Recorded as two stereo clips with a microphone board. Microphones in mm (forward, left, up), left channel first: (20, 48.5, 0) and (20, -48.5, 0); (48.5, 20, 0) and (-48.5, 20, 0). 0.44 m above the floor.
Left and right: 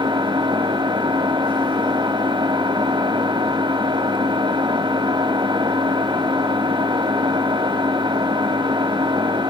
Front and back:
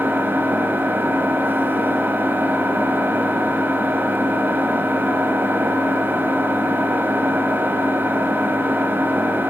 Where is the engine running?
115° right, 1.9 m.